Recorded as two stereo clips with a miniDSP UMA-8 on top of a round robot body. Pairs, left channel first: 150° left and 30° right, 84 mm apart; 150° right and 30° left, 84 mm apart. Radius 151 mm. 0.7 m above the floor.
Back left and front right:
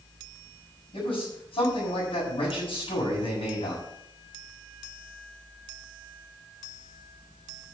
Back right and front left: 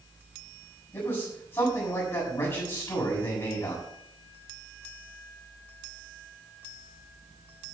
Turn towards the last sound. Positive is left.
turn(degrees=150)